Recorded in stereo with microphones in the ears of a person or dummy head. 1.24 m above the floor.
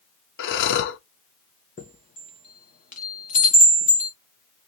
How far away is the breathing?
About 0.9 m.